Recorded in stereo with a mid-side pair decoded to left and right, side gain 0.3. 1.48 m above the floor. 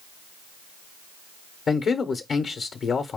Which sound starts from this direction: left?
A man speaking, at 1.7 s.